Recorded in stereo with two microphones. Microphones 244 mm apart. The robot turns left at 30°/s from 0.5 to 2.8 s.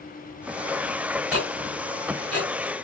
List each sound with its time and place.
1.3 s ticking: 70° right (ahead or behind), 5.5 m